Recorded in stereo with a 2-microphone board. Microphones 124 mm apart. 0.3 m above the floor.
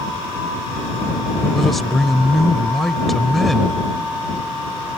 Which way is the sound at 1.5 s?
Centre (ahead or behind).